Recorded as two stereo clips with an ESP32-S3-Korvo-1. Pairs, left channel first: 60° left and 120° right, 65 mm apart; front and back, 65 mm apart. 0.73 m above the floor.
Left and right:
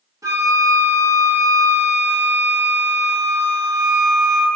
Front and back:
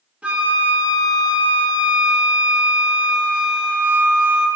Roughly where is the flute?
Right.